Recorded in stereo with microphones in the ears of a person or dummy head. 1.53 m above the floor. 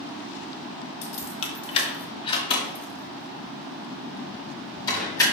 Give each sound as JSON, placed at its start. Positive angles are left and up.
{"t": 1.0, "sound": "keys jangling", "side_deg": 35, "distance_m": 1.4}